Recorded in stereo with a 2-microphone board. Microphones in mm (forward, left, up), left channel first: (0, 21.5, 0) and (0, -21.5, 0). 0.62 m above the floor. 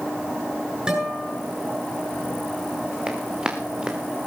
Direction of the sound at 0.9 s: 20° right (ahead or behind).